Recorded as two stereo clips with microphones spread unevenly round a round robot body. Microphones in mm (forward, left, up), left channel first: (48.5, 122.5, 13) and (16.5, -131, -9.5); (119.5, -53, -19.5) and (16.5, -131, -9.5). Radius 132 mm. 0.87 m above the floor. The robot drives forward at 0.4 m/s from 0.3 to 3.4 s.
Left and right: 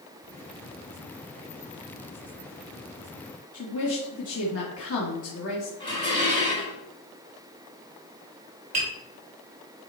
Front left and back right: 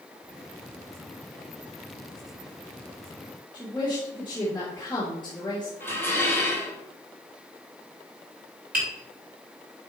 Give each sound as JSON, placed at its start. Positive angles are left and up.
{"t": 3.5, "sound": "a woman speaking", "azimuth_deg": 115, "distance_m": 1.5}
{"t": 5.8, "sound": "dishes clattering", "azimuth_deg": 160, "distance_m": 2.5}
{"t": 8.7, "sound": "tapping", "azimuth_deg": -165, "distance_m": 4.0}